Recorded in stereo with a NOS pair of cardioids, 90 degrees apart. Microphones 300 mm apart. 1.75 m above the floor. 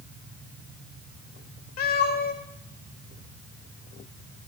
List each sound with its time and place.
1.8 s a cat meowing: 60° left, 4 m